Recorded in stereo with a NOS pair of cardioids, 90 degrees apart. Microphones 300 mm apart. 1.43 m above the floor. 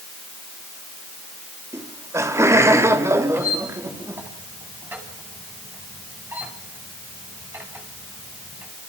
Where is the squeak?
5° right, 7 m.